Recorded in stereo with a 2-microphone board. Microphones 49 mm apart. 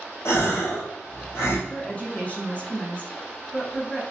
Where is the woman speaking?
30° left (ahead or behind), 1.2 m.